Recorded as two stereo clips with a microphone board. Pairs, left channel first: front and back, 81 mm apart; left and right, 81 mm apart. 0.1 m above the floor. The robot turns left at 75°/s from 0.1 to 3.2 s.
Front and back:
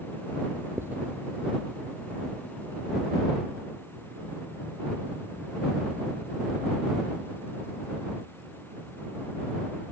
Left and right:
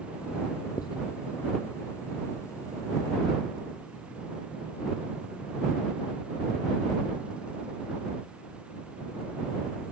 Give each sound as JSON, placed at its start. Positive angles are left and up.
{"t": 0.8, "sound": "writing", "azimuth_deg": 125}